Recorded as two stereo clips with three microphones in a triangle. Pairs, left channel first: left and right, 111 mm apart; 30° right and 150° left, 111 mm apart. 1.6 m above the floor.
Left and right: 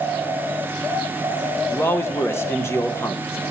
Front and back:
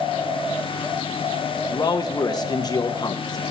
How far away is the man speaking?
About 1.3 m.